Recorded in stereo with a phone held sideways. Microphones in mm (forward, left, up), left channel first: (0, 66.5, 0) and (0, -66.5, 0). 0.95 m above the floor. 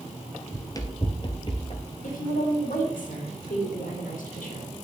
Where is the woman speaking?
80° left, 2.5 m.